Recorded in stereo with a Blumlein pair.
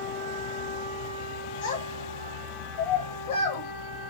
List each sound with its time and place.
1.6 s a child speaking: 55° left, 1.0 m